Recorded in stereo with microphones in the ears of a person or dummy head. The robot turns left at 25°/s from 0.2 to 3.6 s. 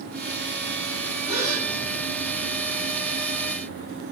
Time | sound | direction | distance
1.3 | a gasp | 55° left (ahead or behind) | 7 m